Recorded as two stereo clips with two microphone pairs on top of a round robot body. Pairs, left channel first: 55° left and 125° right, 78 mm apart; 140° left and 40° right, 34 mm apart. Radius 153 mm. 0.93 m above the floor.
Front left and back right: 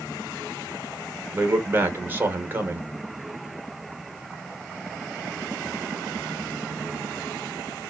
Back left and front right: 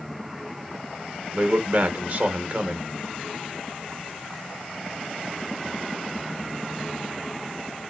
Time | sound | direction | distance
1.3 | a man speaking | 70° right | 1.2 m